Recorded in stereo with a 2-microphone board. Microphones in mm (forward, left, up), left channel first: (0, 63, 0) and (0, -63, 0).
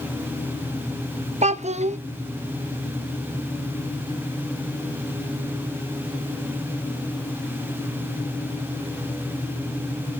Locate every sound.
1.4 s a child speaking: 70° right (ahead or behind), 0.7 m